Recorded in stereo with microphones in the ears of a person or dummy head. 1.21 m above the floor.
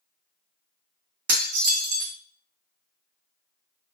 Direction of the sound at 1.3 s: 55° right (ahead or behind).